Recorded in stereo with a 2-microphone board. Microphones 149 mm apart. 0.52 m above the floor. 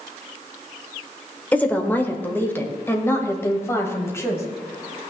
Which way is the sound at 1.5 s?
10° left (ahead or behind).